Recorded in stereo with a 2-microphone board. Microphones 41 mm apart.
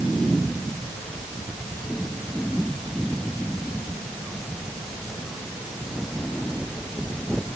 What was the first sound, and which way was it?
Only background noise.